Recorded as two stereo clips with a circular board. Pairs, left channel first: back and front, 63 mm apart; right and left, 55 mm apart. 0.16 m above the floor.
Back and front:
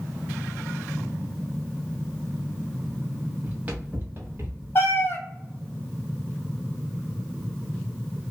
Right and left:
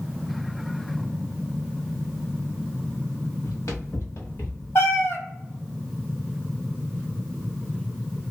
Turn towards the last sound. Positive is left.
turn(degrees=-125)